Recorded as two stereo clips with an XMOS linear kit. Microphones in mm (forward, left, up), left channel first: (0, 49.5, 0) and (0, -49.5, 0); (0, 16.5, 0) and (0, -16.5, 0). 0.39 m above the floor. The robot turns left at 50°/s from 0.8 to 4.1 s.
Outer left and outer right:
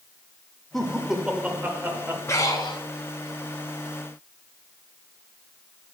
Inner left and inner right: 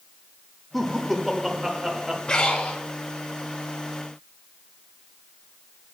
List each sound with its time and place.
0.7 s laughter: 5° left, 0.9 m; by 2.2 s 60° right, 0.9 m
2.3 s breathing: 30° left (ahead or behind), 1.4 m; by 2.8 s 55° left (ahead or behind), 1.4 m